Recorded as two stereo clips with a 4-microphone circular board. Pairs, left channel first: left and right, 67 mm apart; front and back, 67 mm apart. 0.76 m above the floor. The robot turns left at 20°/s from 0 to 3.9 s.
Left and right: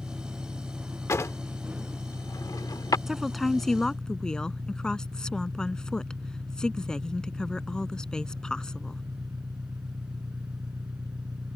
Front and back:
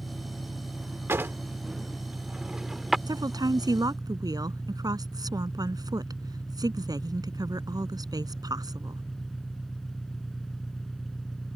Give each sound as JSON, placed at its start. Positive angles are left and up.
{"t": 0.0, "sound": "an engine running", "azimuth_deg": -5}
{"t": 1.1, "sound": "a drawer", "azimuth_deg": 130}
{"t": 3.1, "sound": "a woman speaking", "azimuth_deg": -175}